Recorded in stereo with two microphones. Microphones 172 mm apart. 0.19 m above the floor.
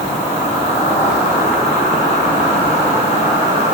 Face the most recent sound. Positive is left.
turn(degrees=40)  # may be behind; listen again after turning